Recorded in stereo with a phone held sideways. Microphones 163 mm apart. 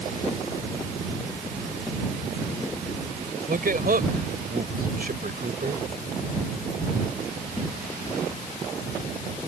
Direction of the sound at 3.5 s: 65° right (ahead or behind).